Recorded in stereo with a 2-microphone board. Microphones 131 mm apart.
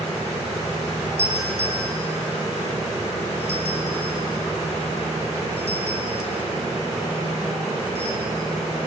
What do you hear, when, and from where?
1.2 s a doorbell: 65° right (ahead or behind), 5.5 m